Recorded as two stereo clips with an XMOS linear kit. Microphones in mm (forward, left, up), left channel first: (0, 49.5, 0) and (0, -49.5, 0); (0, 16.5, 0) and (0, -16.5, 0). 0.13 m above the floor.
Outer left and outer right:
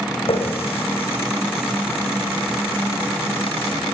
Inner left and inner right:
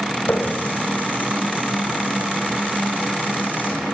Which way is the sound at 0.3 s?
75° left (ahead or behind).